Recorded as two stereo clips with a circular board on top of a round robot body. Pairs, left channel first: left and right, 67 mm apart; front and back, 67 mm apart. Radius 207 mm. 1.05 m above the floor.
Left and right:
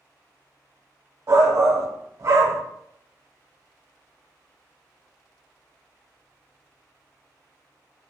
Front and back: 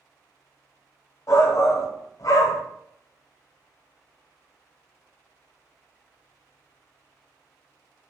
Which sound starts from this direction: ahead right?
A shout, at 1.3 s.